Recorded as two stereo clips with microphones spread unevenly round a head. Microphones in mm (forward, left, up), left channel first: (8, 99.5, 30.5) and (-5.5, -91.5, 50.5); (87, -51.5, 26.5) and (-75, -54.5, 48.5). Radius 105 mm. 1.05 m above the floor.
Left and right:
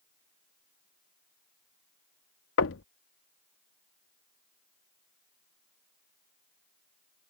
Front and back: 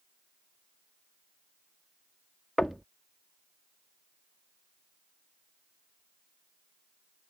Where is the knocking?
90° left.